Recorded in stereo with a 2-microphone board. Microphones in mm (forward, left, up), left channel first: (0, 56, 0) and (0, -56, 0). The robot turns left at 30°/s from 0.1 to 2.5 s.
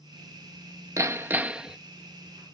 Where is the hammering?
25° right (ahead or behind); by 1.8 s 5° right (ahead or behind).